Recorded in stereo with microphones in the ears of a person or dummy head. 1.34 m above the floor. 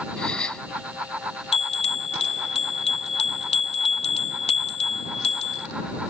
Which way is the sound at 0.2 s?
5° left (ahead or behind).